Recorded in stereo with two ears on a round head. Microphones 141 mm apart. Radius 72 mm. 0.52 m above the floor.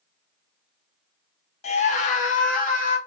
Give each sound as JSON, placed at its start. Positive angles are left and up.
{"t": 1.6, "sound": "a scream", "side_deg": 40, "distance_m": 0.8}